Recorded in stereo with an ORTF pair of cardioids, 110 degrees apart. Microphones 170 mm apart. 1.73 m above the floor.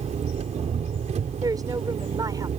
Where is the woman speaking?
20° right.